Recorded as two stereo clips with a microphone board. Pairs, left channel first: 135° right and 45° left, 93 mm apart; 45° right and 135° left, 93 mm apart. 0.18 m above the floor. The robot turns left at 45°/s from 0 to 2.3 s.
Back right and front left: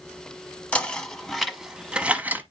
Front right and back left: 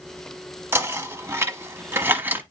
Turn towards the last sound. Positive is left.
turn(degrees=95)